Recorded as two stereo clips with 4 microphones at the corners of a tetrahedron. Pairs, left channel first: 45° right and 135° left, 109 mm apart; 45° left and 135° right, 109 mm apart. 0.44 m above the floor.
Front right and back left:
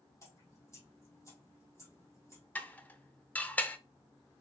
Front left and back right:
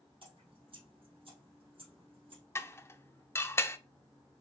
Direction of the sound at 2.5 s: 10° left.